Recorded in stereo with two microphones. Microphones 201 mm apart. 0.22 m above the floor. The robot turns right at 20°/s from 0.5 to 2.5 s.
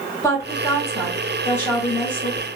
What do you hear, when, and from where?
0.2 s a woman speaking: 15° left (ahead or behind), 1.6 m; by 2.5 s 5° left (ahead or behind), 1.6 m